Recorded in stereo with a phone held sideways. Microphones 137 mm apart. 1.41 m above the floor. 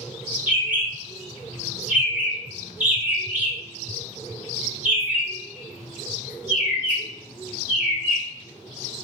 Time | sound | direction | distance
0.5 | a bird | 10° right (ahead or behind) | 1.1 m